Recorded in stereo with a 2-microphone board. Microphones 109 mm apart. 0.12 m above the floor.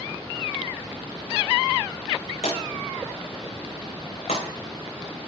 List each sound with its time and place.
2.4 s a drawer: 75° left (ahead or behind), 4.5 m